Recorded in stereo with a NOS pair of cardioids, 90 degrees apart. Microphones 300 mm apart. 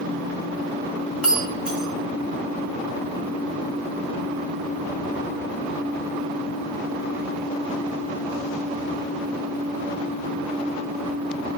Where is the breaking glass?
5° right, 1.6 m.